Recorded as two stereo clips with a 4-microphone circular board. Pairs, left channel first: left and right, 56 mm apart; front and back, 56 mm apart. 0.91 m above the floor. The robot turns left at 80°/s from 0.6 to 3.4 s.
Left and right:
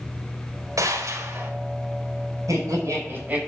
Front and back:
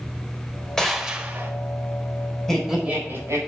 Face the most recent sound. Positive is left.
turn(degrees=-160)